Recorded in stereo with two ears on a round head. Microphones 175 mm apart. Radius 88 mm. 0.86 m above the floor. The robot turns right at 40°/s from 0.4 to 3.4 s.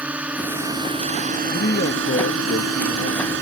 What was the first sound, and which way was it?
A drone, 5° right (ahead or behind).